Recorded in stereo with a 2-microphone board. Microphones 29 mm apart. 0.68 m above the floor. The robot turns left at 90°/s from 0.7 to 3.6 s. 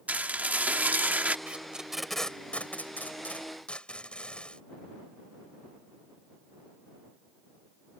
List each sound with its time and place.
0.1 s dishes clattering: 70° right; by 1.4 s 130° right
1.5 s tape being pulled: 45° right (ahead or behind); by 4.6 s 35° left (ahead or behind)